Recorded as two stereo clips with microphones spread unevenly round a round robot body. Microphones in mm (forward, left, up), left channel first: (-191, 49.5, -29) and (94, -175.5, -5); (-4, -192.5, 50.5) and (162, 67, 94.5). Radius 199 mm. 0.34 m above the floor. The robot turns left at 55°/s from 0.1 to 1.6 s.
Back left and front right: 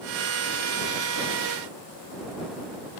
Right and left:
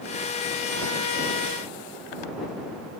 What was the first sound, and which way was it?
Only background noise.